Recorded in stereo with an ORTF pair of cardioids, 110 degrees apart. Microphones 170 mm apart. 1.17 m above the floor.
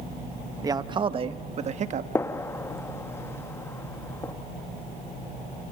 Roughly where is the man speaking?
Ahead.